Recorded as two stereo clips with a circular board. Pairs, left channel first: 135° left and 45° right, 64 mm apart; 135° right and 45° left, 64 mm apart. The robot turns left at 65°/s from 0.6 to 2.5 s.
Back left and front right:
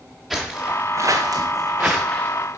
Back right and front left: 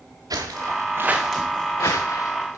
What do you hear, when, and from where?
0.3 s footsteps: 45° left, 1.4 m; by 2.6 s straight behind, 1.7 m